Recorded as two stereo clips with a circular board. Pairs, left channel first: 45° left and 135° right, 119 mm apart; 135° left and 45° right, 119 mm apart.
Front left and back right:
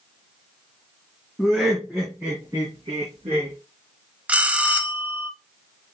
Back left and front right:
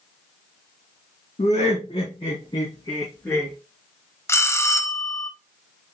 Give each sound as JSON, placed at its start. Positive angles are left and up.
{"t": 1.4, "sound": "laughter", "azimuth_deg": 135, "distance_m": 2.0}
{"t": 4.3, "sound": "a bell", "azimuth_deg": 160, "distance_m": 0.5}